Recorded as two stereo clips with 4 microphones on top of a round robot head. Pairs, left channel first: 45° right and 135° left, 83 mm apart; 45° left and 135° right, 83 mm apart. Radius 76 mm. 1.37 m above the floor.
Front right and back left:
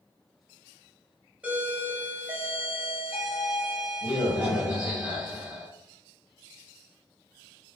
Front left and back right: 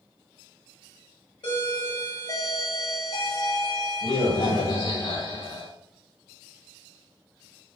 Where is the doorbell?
65° left, 1.5 m.